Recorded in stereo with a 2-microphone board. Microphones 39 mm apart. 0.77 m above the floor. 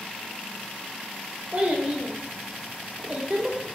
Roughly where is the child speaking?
Right.